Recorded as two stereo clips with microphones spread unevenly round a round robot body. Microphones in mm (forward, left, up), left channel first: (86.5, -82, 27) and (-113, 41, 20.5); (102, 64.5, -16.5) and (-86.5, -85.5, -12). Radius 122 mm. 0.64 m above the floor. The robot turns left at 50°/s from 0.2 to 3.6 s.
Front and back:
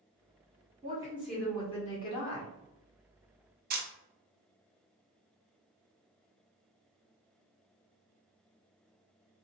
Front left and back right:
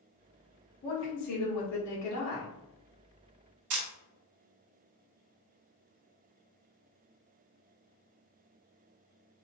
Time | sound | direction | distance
0.8 | a woman speaking | 85° left | 1.5 m
3.7 | a camera shutter | 165° right | 0.7 m